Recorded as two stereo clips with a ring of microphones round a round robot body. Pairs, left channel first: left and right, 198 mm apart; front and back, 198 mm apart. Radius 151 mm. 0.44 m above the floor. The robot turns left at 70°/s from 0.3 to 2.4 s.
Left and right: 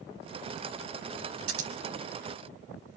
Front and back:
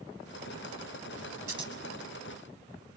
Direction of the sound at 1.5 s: 100° right.